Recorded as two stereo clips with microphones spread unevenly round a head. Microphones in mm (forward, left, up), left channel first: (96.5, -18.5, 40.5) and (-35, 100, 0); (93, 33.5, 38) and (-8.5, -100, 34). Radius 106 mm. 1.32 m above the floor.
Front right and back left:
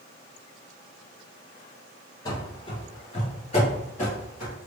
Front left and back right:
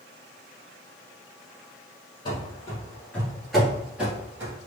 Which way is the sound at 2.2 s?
5° left.